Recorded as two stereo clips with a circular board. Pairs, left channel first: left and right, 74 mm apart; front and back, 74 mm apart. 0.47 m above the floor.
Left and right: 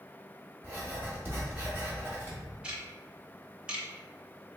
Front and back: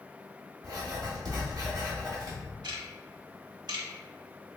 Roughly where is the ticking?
Behind.